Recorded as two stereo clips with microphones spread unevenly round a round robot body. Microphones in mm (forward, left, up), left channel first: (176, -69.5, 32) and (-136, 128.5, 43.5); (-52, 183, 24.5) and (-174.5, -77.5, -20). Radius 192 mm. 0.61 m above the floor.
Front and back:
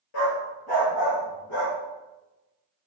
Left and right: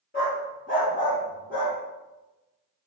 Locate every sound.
0.1 s a dog barking: straight ahead, 3.5 m